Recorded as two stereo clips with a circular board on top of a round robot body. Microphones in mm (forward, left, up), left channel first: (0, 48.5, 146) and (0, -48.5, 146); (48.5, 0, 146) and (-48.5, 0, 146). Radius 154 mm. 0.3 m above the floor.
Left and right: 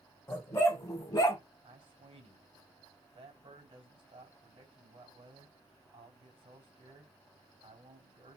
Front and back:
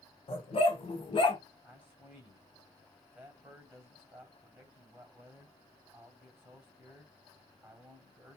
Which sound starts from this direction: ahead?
A dog barking, at 0.3 s.